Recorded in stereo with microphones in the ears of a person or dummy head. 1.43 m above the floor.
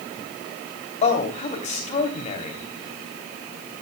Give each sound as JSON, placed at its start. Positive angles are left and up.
{"t": 1.0, "sound": "a man speaking", "side_deg": 45, "distance_m": 3.0}